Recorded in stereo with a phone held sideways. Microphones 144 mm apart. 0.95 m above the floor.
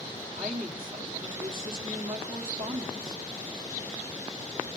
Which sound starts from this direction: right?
A woman speaking, at 0.3 s.